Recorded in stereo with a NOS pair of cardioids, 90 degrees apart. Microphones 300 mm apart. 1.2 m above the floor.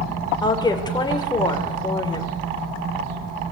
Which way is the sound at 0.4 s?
15° left.